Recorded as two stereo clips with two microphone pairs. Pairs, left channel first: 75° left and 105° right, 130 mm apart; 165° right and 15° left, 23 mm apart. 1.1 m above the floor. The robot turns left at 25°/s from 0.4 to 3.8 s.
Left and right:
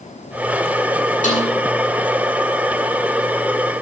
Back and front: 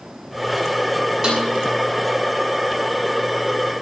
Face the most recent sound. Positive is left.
turn(degrees=15)